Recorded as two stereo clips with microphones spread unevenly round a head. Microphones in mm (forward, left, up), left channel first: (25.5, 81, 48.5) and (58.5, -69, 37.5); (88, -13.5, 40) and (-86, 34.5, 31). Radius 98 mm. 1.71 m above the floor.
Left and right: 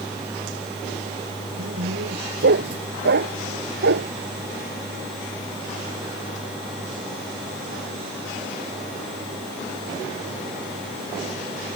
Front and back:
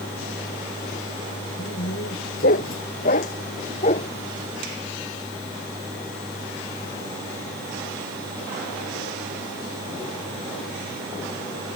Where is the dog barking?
55° right; by 4.1 s 75° right.